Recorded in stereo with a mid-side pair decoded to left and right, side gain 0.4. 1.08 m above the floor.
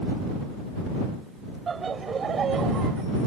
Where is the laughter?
45° right; by 3.0 s 65° right.